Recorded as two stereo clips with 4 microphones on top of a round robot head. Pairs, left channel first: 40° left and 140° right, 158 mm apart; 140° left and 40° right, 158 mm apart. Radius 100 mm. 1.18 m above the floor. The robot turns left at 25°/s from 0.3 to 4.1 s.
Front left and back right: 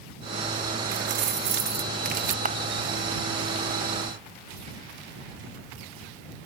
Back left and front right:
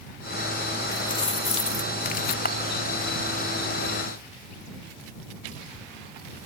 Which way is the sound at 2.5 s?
175° left.